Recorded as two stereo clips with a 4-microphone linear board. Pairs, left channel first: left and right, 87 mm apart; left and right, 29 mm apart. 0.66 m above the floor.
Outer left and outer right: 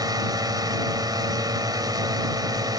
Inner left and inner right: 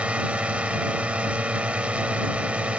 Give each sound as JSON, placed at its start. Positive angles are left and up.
{"t": 0.0, "sound": "a drone", "side_deg": -50}